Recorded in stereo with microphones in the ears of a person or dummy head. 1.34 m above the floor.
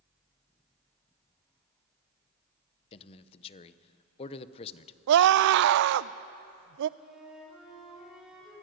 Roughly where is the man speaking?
Left.